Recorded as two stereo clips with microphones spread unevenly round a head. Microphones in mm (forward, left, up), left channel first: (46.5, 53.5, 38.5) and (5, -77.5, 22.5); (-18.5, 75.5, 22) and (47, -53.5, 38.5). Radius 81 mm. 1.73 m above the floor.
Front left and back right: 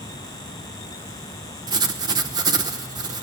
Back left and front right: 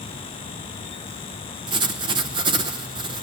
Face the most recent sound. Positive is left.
turn(degrees=-55)